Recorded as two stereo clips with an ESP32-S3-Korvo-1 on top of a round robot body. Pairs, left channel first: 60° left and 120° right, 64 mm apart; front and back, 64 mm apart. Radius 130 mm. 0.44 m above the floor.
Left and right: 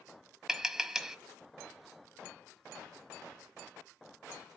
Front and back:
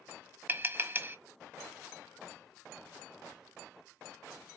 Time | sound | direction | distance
0.5 | tapping | 170° left | 1.3 m